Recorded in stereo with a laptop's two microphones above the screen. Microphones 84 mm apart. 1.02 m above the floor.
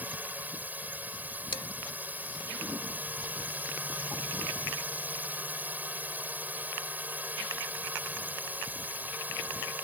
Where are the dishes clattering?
80° left.